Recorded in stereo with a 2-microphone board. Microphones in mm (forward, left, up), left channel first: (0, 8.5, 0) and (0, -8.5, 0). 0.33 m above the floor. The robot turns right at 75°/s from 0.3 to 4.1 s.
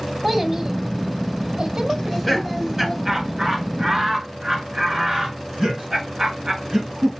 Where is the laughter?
25° left (ahead or behind), 2 m; by 7.1 s 40° right (ahead or behind), 2 m.